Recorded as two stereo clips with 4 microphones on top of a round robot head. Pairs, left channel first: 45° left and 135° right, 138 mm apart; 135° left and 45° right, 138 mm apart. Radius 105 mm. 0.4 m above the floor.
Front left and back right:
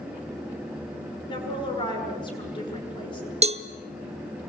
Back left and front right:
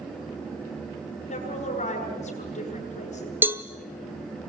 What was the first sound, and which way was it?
A woman speaking, 100° left.